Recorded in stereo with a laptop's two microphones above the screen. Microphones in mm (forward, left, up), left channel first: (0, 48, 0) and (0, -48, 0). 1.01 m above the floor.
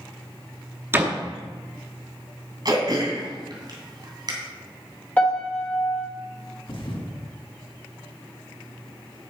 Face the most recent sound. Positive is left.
turn(degrees=60)  # may be behind; listen again after turning